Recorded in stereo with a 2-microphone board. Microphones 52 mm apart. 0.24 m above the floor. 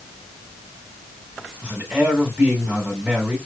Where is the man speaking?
20° right (ahead or behind), 1.9 m.